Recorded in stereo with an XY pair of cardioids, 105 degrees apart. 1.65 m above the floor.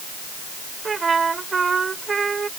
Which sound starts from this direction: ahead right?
A trumpet, at 0.8 s.